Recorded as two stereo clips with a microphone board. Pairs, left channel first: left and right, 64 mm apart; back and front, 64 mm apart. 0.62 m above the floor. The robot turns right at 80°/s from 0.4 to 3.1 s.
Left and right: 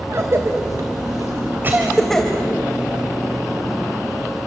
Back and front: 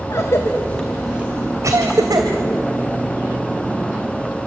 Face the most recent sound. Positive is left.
turn(degrees=85)